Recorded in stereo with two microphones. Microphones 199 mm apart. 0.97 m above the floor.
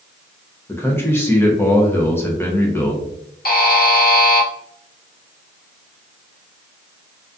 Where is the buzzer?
50° left (ahead or behind), 0.5 m.